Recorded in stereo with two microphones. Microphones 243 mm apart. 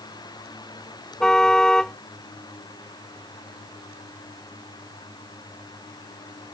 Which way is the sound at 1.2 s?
Centre (ahead or behind).